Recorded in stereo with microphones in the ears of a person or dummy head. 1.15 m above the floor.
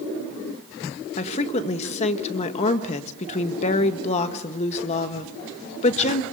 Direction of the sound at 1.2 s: 35° left (ahead or behind).